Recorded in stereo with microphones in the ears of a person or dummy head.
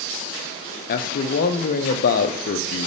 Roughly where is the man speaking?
Left.